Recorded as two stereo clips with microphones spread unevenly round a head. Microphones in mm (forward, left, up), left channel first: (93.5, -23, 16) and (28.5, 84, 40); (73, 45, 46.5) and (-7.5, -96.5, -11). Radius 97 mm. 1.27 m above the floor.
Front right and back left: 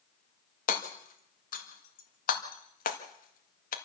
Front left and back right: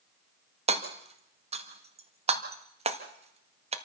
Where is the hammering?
70° right, 1.7 m.